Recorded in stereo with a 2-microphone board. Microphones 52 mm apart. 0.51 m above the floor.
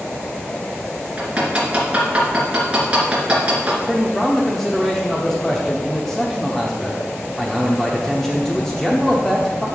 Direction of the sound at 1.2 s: 25° right (ahead or behind).